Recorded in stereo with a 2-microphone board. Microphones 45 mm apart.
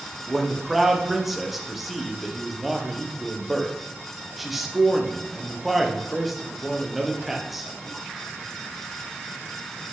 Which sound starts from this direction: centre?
A man speaking, at 0.3 s.